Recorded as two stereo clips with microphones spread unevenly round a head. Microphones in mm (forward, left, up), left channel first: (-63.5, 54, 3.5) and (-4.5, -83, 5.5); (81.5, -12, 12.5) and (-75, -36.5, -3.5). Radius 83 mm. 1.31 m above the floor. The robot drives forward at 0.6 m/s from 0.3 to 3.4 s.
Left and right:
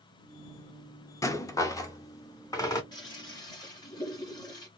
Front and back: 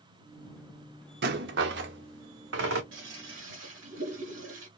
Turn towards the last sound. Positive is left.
turn(degrees=175)